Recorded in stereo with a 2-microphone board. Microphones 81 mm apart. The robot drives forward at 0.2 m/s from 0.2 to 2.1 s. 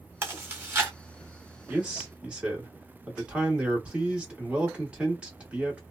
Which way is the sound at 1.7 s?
15° right (ahead or behind).